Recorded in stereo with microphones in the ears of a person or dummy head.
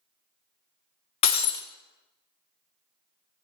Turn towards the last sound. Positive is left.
turn(degrees=30)  # may be behind; listen again after turning